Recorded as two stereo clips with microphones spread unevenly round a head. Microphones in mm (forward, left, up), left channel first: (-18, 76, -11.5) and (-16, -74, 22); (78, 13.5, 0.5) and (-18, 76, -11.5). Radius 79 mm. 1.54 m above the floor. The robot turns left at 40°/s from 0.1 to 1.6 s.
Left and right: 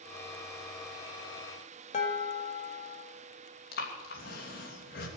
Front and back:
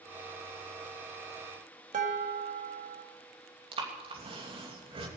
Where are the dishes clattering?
140° left, 1.8 m.